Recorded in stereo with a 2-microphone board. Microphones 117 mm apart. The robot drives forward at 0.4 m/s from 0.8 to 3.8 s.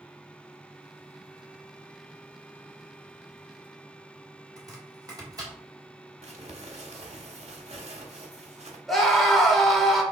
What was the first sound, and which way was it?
Chopping, 35° right (ahead or behind).